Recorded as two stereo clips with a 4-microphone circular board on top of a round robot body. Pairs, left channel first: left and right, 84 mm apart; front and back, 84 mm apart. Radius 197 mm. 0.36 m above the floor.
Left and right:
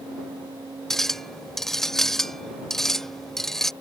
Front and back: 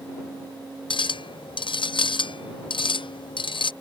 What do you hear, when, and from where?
0.9 s a clink: 5° left